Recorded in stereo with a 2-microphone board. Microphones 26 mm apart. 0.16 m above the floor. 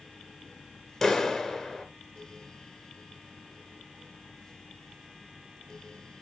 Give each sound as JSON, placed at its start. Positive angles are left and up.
{"t": 1.0, "sound": "a clap", "side_deg": 10, "distance_m": 1.7}